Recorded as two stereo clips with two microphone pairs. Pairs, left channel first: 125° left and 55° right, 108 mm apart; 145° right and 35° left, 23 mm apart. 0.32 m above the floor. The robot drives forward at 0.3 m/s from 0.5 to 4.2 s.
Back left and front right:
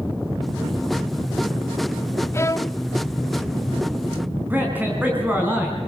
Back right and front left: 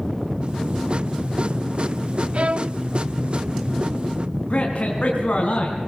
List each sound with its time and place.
2.3 s a violin: 60° left, 0.6 m; by 2.8 s 75° left, 0.5 m
4.5 s a man speaking: 125° right, 3.5 m